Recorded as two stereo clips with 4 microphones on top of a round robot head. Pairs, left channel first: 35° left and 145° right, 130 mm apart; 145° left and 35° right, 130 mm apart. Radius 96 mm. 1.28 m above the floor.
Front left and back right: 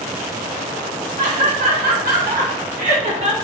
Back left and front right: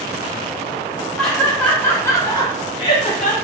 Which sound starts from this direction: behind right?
Laughter, at 1.2 s.